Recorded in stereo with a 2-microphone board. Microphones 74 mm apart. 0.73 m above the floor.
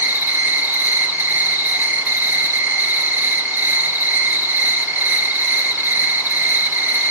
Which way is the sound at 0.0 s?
25° right (ahead or behind).